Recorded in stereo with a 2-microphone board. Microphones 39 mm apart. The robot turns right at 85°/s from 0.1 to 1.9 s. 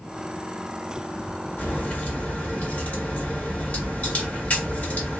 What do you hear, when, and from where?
1.6 s a crack: 40° left (ahead or behind), 1.8 m; by 5.2 s 35° left (ahead or behind), 1.8 m